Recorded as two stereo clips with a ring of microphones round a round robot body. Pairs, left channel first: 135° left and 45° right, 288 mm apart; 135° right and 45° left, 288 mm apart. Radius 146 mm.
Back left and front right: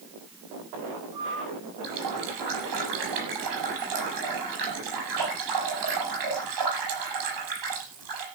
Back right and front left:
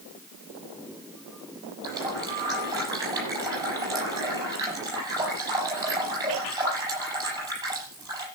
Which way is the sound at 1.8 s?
35° right.